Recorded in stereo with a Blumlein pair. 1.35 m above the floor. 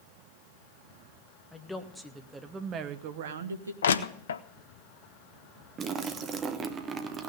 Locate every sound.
1.5 s a woman speaking: 5° left, 1.5 m; by 3.7 s 80° right, 1.0 m
3.8 s crushing: 65° left, 0.6 m
5.8 s a splash: 25° right, 1.0 m